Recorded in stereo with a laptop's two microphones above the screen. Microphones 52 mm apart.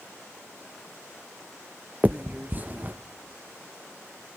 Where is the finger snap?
30° right (ahead or behind), 0.5 m.